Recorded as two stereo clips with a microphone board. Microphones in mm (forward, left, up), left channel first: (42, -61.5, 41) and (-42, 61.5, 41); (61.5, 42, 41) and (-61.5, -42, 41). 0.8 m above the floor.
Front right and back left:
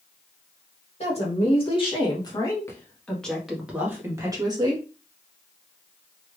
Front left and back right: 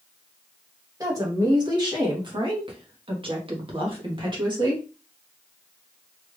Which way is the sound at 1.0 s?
85° right.